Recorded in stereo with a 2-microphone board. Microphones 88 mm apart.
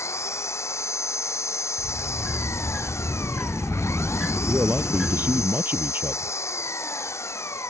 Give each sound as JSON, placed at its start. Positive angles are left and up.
{"t": 0.0, "sound": "an engine running", "side_deg": 30}
{"t": 1.8, "sound": "a sliding door", "side_deg": -5}
{"t": 4.5, "sound": "a man speaking", "side_deg": -25}